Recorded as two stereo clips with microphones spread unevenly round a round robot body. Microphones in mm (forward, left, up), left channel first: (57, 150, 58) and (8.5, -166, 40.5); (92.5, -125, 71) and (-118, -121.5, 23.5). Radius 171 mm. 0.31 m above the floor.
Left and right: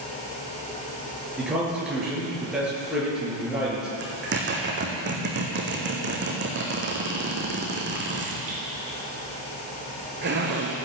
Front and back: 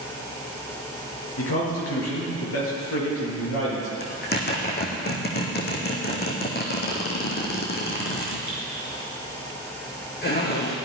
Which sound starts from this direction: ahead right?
A zipper, at 4.0 s.